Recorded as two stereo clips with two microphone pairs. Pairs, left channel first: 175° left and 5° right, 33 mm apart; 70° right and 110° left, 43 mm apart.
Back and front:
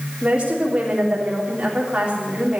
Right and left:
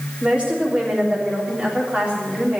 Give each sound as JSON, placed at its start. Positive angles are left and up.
{"t": 0.2, "sound": "a woman speaking", "azimuth_deg": 50, "distance_m": 3.5}